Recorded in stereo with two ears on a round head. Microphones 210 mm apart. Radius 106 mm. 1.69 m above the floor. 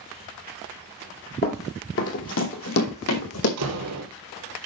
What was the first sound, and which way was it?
Running footsteps, 40° left (ahead or behind).